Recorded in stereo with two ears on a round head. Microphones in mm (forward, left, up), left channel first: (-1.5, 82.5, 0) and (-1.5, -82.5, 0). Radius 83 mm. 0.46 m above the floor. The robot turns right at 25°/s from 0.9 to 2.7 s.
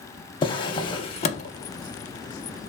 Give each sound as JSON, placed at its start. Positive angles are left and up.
{"t": 0.4, "sound": "a drawer", "side_deg": 25, "distance_m": 0.5}